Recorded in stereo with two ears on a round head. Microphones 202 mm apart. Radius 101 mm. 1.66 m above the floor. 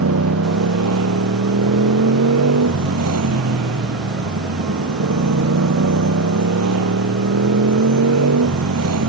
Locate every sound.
0.0 s a motorcycle: 75° right (ahead or behind)